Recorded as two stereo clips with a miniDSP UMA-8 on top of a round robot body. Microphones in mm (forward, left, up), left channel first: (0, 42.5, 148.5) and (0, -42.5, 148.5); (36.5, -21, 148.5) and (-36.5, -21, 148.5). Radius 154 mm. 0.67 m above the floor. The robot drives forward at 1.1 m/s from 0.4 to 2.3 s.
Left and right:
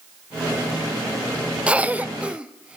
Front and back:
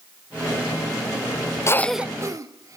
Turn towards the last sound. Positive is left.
turn(degrees=-165)